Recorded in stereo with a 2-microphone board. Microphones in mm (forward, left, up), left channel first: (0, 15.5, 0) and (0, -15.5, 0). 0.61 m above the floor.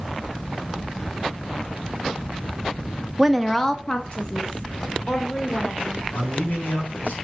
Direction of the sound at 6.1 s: 80° left.